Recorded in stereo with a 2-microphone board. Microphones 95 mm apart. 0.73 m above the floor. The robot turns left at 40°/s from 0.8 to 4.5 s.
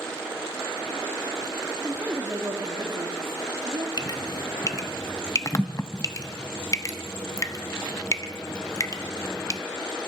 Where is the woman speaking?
10° right, 1.6 m; by 3.9 s 95° right, 1.6 m.